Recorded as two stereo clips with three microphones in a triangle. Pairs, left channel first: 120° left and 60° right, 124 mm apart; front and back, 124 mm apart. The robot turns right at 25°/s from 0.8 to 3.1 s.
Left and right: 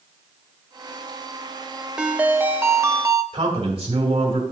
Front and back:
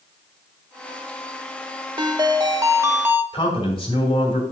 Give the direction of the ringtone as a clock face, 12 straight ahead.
5 o'clock.